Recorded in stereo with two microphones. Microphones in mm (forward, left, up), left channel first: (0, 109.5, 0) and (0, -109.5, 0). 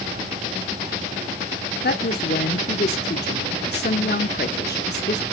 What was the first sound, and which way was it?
A woman speaking, 50° left (ahead or behind).